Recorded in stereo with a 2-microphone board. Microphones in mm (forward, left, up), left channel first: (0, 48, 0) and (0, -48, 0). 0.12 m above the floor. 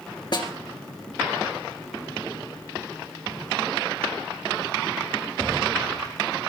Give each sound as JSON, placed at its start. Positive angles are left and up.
{"t": 0.3, "sound": "a snare drum", "side_deg": 50, "distance_m": 2.5}